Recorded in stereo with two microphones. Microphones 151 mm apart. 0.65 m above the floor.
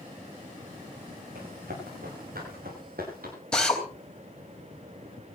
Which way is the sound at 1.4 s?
85° right.